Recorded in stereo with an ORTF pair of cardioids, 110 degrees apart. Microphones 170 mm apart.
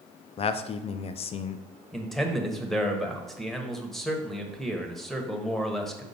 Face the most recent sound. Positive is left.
turn(degrees=0)